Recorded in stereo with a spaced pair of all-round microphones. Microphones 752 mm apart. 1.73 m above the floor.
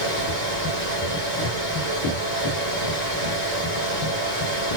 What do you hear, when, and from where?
0.0 s a fan: 70° right (ahead or behind), 4 m